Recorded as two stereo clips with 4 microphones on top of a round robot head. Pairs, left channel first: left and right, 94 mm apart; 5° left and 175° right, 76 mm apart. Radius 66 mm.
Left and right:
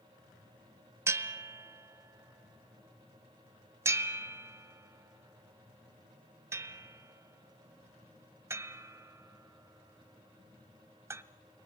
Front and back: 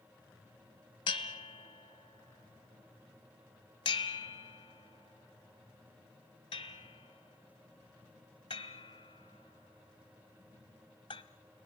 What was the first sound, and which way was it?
A bell, 35° right.